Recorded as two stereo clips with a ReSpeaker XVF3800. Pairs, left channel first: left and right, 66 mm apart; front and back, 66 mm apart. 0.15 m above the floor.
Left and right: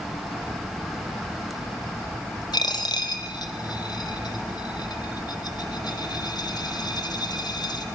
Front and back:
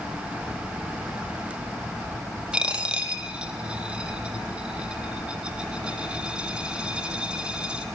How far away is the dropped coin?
About 2.0 m.